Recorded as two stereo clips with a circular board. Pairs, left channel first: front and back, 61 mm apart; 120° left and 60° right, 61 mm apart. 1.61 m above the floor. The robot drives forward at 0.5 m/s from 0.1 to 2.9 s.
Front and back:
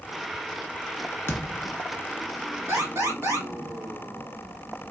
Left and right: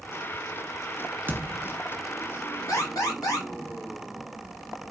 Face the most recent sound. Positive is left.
turn(degrees=140)